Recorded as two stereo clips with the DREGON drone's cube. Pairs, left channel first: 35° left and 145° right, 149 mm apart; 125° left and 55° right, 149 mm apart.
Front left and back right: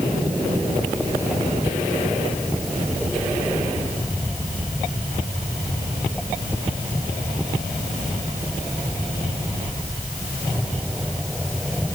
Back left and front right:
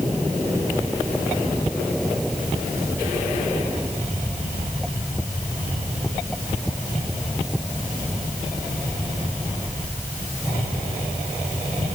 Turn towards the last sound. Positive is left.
No sound to turn to.